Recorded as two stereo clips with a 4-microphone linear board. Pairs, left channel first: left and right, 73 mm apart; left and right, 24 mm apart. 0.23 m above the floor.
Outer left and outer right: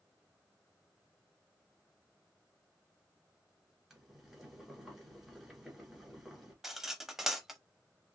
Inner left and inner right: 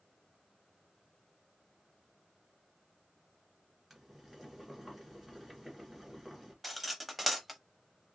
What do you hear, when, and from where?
3.9 s boiling: 5° right (ahead or behind), 1.7 m
6.6 s cutlery clinking: 5° right (ahead or behind), 0.5 m